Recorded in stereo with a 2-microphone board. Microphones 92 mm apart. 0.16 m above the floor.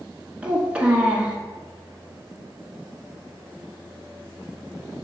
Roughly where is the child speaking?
Centre.